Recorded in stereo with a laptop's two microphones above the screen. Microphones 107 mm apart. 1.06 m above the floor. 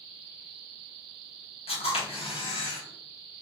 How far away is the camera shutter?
About 1.7 m.